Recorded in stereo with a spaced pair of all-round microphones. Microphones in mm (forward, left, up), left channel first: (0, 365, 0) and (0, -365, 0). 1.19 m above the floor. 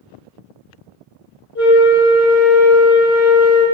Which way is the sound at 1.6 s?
30° left (ahead or behind).